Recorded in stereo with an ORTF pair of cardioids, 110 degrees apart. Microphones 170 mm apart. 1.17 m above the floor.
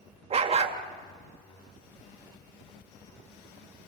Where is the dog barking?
40° right, 2.0 m.